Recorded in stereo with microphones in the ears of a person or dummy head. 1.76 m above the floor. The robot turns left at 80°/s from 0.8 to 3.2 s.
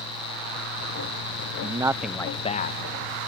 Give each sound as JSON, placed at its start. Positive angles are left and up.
{"t": 1.6, "sound": "a man speaking", "azimuth_deg": -140}